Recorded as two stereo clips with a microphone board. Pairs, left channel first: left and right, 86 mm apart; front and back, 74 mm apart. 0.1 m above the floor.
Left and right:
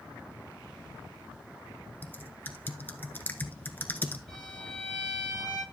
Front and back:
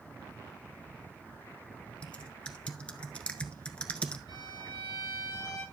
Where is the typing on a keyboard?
55° left, 0.8 m.